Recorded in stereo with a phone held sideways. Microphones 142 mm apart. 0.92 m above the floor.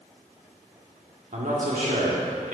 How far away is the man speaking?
About 1.9 m.